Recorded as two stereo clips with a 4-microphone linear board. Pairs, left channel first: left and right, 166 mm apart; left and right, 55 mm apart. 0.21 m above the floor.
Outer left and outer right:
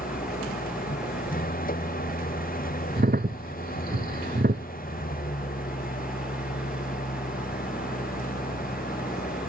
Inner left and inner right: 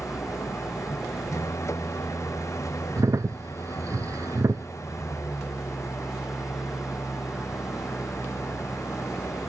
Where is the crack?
75° right (ahead or behind).